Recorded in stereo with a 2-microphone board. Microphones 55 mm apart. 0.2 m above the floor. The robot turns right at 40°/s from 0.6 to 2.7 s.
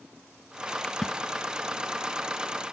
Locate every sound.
0.8 s a splash: 15° left (ahead or behind), 0.8 m; by 1.2 s 5° left (ahead or behind), 0.8 m